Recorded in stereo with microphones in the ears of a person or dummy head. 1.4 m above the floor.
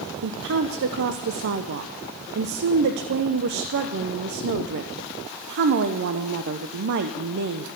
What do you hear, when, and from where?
0.2 s a woman speaking: 65° right (ahead or behind), 0.6 m